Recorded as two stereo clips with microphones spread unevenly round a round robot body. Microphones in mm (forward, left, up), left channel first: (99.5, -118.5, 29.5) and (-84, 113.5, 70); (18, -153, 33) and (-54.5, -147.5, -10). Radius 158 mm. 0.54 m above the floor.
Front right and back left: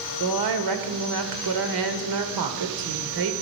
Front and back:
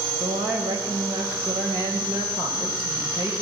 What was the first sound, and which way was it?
A woman speaking, 120° left.